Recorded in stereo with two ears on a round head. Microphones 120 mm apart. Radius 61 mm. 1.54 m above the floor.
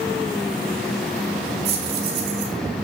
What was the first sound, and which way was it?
Keys jangling, 80° right.